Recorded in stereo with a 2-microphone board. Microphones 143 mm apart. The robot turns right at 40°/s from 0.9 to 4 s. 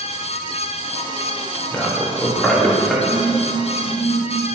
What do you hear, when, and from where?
1.7 s a man speaking: 15° left (ahead or behind), 1.2 m; by 2.9 s centre (ahead or behind), 1.2 m
3.0 s a phone buzzing: 10° left (ahead or behind), 1.1 m; by 4.2 s 35° left (ahead or behind), 1.1 m